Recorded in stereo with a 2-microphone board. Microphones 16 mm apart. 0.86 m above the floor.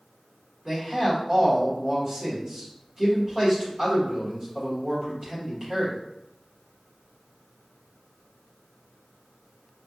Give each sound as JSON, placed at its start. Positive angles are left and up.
{"t": 0.7, "sound": "a man speaking", "side_deg": -40, "distance_m": 1.5}